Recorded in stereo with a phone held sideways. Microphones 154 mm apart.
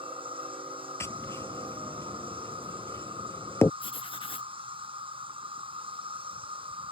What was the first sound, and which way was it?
An insect, 35° right (ahead or behind).